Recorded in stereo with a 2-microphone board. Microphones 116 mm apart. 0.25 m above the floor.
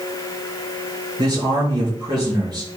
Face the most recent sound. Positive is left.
turn(degrees=-40)  # may be behind; listen again after turning